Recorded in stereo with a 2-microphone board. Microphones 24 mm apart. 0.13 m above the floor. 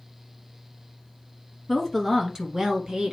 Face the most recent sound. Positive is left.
turn(degrees=-40)  # may be behind; listen again after turning